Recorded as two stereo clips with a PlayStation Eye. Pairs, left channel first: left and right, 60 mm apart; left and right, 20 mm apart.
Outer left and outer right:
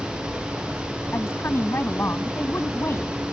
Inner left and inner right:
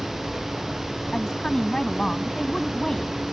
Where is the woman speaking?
40° left (ahead or behind).